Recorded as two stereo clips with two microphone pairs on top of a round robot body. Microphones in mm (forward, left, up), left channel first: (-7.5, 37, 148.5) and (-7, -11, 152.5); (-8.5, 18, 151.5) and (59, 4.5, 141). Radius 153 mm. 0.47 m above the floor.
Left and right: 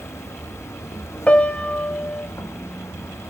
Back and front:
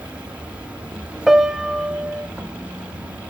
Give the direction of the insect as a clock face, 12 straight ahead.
10 o'clock.